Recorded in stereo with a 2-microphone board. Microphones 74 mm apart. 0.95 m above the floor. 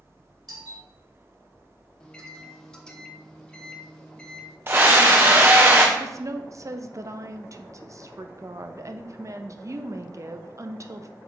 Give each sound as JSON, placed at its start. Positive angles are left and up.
{"t": 0.5, "sound": "a doorbell", "side_deg": -60, "distance_m": 3.0}
{"t": 2.0, "sound": "a microwave", "side_deg": 10, "distance_m": 1.1}
{"t": 4.7, "sound": "a scream", "side_deg": -30, "distance_m": 0.6}
{"t": 6.0, "sound": "a woman speaking", "side_deg": -45, "distance_m": 0.6}